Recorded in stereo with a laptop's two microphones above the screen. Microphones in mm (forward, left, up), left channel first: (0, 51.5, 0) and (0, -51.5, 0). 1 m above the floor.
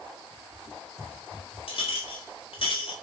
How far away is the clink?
About 0.7 m.